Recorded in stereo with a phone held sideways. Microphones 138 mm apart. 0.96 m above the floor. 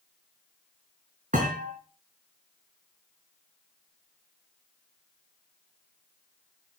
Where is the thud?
75° right (ahead or behind), 4 m.